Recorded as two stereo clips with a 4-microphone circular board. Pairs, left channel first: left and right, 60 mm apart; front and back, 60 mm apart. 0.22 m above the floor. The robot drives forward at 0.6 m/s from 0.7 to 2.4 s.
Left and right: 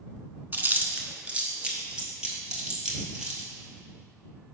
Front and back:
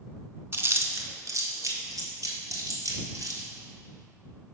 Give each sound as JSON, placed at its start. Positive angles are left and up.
{"t": 0.5, "sound": "chewing", "azimuth_deg": -140, "distance_m": 0.5}